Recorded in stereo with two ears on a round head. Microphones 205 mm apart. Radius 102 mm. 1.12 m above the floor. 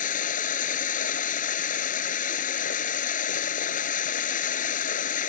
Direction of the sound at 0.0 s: 35° left (ahead or behind).